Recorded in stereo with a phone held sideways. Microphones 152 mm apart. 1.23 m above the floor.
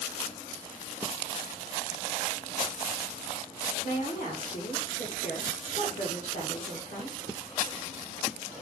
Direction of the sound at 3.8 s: 70° left (ahead or behind).